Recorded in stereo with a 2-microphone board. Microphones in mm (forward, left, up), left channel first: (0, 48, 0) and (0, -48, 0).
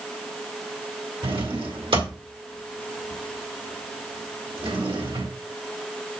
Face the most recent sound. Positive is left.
turn(degrees=-75)  # may be behind; listen again after turning